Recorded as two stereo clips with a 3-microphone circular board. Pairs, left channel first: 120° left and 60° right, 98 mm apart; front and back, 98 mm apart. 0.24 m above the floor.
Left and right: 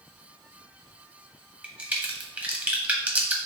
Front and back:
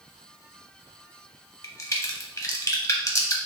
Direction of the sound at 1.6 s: 5° left.